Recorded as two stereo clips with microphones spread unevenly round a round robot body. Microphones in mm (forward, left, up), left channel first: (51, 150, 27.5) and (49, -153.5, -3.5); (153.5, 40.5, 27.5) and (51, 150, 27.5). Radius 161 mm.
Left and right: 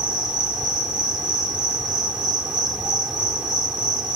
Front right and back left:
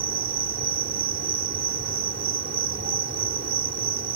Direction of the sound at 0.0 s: Straight behind.